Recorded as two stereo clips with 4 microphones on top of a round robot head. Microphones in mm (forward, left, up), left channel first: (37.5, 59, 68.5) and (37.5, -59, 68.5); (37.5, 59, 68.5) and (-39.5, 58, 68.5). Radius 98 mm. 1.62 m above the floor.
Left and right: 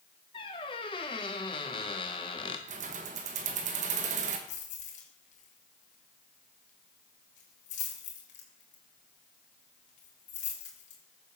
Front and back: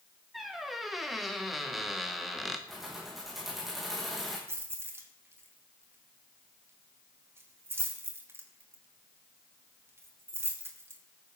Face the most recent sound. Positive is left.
turn(degrees=120)